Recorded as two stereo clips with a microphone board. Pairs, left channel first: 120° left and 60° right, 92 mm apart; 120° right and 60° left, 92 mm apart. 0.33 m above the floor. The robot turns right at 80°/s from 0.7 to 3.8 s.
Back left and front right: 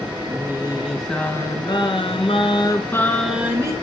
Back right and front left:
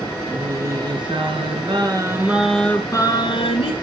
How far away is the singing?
About 4 m.